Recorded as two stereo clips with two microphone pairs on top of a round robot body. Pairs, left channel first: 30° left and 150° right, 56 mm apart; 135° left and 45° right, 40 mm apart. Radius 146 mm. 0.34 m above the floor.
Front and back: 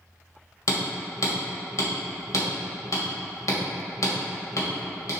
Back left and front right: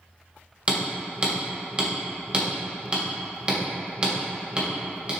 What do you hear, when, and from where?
0.7 s hammering: 10° left, 2.5 m